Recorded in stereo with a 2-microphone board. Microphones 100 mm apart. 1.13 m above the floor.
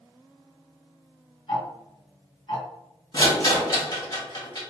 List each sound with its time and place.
1.5 s ticking: 55° left (ahead or behind), 1.6 m
3.1 s a rattle: 45° left (ahead or behind), 1.5 m